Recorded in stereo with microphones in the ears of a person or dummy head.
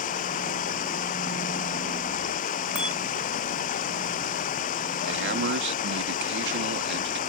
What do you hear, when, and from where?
0.0 s running water: 45° left (ahead or behind)
2.8 s a bicycle bell: centre (ahead or behind)
5.1 s a man speaking: 60° right (ahead or behind)